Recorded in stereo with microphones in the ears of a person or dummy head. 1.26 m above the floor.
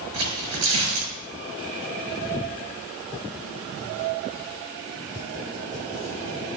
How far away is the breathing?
No breathing in this recording.